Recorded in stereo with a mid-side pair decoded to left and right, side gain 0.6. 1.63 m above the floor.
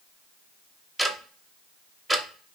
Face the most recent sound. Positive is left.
turn(degrees=-10)